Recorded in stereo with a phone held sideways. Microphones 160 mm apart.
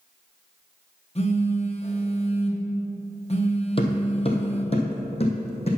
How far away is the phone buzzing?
About 1.4 m.